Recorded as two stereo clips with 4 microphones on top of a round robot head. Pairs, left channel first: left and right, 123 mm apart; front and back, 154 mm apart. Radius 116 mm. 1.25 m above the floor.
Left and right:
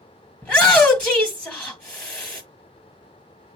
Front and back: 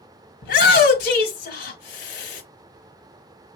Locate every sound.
0.4 s a shout: 10° left, 1.2 m